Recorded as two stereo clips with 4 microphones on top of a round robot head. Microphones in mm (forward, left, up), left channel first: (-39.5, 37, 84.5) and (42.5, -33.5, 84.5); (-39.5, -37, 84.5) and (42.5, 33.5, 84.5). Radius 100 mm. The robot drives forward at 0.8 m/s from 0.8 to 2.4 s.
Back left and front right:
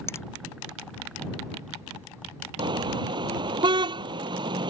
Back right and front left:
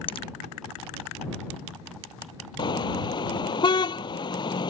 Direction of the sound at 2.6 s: 90° right.